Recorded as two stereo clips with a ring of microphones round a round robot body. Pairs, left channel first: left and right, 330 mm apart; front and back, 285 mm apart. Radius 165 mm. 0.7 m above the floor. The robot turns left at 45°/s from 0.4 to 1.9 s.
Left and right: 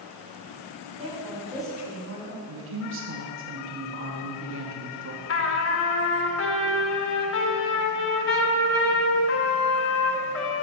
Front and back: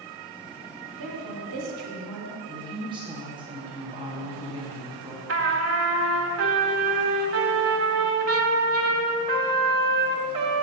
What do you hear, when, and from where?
1.0 s a woman speaking: 160° right, 1.8 m; by 2.4 s 155° left, 1.8 m
2.5 s a woman speaking: 115° right, 1.1 m
5.3 s a trumpet: 140° left, 1.1 m